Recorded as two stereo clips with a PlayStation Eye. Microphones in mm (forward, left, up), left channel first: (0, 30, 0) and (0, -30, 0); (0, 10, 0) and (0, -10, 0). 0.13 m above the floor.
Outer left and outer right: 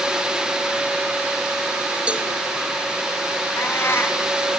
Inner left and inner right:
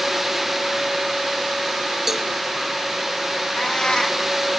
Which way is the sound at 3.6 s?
40° left (ahead or behind).